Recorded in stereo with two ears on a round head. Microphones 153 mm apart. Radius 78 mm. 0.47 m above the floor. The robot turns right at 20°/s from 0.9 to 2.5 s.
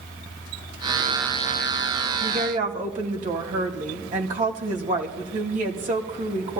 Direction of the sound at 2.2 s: 50° right (ahead or behind).